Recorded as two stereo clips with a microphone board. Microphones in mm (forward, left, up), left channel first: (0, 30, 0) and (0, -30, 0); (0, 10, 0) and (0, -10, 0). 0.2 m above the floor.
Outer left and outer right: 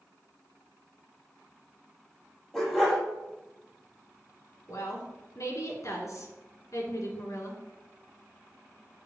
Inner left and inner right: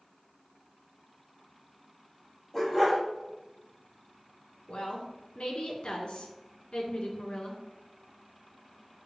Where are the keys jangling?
No keys jangling in this recording.